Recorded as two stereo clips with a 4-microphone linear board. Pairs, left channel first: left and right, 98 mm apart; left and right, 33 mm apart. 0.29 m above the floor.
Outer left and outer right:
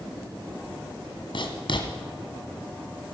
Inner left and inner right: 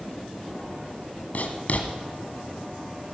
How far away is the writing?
About 2 m.